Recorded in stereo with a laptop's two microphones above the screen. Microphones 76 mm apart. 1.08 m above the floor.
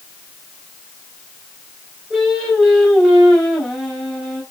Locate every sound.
2.1 s singing: 5° left (ahead or behind), 4.5 m